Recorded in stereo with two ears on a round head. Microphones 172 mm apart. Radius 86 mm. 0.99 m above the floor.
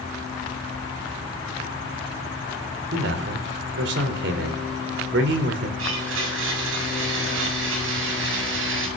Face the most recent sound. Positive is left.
turn(degrees=-75)  # may be behind; listen again after turning